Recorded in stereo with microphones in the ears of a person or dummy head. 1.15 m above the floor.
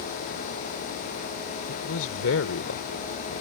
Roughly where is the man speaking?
Left.